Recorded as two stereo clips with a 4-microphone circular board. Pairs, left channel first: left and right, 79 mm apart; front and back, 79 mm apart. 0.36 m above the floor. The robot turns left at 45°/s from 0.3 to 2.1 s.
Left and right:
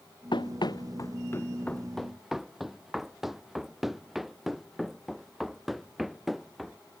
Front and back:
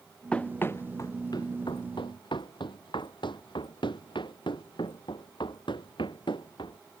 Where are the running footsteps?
75° left; by 6.8 s straight ahead.